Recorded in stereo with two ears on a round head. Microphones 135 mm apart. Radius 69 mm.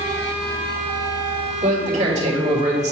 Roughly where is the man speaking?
Right.